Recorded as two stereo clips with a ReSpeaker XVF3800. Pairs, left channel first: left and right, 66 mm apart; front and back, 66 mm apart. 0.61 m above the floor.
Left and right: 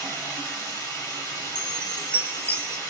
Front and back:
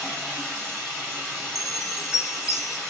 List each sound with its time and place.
0.0 s running water: 80° left, 2.5 m
1.6 s a chime: 35° right, 0.7 m